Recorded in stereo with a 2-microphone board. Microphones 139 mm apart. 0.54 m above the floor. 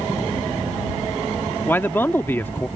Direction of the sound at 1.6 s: 15° left (ahead or behind).